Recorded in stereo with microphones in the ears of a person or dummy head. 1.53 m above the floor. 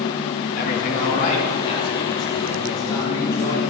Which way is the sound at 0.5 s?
50° left (ahead or behind).